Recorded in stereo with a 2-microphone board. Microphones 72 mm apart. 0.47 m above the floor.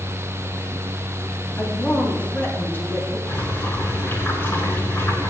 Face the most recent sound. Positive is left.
turn(degrees=35)  # may be behind; listen again after turning